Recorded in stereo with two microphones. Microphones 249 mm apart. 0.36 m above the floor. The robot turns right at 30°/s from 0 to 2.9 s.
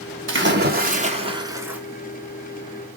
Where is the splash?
50° right, 1.0 m; by 1.8 s 5° right, 1.0 m.